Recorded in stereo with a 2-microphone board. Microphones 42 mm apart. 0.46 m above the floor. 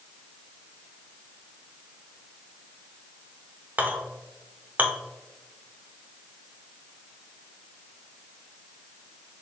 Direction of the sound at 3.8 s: 40° right (ahead or behind).